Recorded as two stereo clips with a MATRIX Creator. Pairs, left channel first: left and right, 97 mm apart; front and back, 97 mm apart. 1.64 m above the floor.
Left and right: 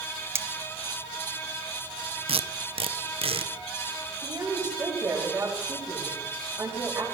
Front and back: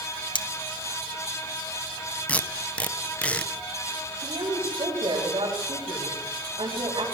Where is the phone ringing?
No phone ringing in this recording.